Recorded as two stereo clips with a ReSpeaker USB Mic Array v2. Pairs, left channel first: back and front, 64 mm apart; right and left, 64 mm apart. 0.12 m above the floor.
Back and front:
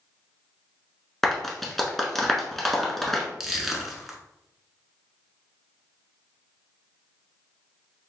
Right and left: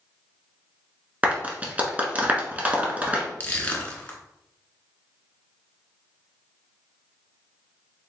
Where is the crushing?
80° right, 0.9 m.